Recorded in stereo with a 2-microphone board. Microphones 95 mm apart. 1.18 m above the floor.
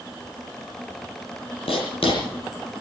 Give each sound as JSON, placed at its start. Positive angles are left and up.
{"t": 1.7, "sound": "writing", "side_deg": 75, "distance_m": 7.0}